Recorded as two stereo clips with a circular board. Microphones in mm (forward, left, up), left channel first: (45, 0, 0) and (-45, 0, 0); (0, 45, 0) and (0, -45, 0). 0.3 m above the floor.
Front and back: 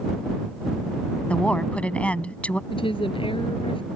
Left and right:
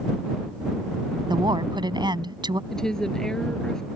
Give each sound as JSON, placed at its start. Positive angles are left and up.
{"t": 1.3, "sound": "a woman speaking", "azimuth_deg": -75}
{"t": 2.7, "sound": "a woman speaking", "azimuth_deg": 5}